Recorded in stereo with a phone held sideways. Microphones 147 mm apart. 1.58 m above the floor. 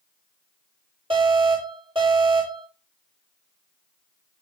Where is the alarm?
40° right (ahead or behind), 7.5 m.